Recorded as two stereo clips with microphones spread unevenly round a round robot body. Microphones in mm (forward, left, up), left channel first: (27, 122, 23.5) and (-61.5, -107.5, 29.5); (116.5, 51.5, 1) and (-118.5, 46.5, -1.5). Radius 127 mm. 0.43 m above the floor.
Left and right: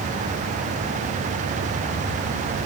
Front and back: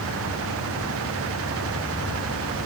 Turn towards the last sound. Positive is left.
No sound to turn to.